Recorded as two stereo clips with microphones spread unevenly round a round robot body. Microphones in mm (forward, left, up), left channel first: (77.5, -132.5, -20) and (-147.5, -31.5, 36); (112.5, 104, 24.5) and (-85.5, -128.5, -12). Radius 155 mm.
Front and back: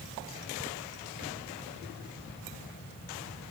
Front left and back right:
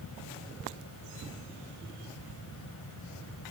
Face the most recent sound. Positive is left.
No sound to turn to.